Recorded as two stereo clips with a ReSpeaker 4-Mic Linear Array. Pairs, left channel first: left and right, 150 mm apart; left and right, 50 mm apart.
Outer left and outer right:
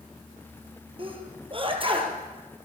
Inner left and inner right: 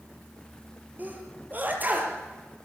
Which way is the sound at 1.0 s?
35° right (ahead or behind).